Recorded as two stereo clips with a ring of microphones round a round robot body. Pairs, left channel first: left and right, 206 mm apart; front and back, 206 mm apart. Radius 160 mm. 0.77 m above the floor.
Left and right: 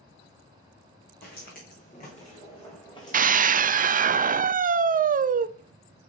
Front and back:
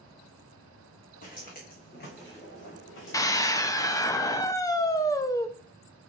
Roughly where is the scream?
Ahead right.